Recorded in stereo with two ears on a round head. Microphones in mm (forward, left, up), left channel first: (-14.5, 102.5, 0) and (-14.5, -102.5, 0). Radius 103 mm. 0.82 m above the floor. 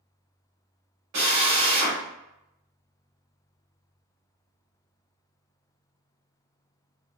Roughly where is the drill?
Right.